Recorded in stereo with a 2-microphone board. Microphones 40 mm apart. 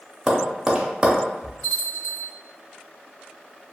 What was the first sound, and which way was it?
Tapping, 15° right (ahead or behind).